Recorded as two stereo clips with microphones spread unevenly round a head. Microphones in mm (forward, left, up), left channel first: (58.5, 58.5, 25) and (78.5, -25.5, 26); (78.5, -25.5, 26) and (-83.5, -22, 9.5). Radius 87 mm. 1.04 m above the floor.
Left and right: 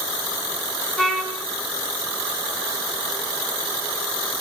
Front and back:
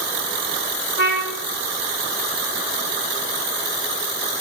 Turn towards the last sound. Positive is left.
turn(degrees=15)